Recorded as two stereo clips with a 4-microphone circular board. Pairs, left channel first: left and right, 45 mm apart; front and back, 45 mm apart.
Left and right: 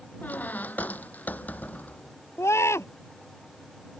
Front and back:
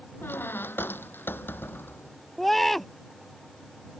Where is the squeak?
40° left.